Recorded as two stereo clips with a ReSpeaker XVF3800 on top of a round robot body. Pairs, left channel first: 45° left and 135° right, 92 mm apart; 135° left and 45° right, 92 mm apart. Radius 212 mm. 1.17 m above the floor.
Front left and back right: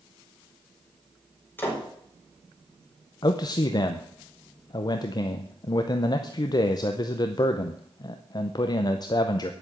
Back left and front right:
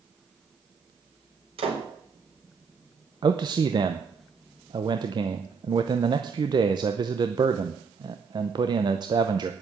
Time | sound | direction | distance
1.6 | a door slam | 25° right | 4.5 m
3.2 | a man speaking | straight ahead | 0.8 m